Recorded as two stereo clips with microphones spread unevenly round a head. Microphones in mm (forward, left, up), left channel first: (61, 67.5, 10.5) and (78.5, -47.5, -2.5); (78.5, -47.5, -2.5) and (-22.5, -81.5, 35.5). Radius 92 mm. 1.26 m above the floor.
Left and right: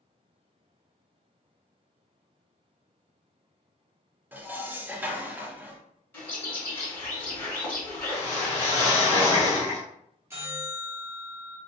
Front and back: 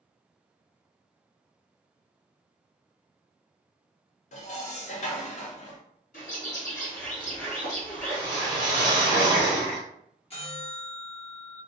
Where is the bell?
15° right, 1.2 m.